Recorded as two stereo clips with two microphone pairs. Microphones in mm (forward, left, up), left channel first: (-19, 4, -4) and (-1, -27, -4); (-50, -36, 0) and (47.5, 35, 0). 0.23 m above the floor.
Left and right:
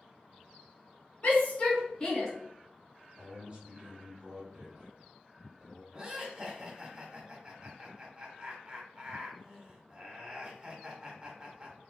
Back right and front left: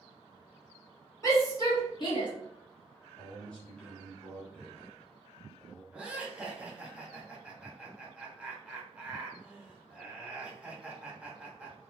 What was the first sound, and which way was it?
A shout, 160° left.